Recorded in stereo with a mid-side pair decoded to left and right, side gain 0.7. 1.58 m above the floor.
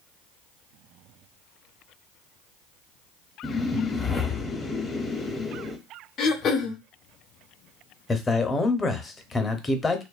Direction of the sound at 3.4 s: 15° left.